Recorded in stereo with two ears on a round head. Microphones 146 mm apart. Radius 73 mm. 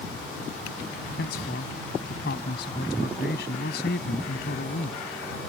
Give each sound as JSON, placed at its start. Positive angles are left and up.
{"t": 1.2, "sound": "a man speaking", "side_deg": 70}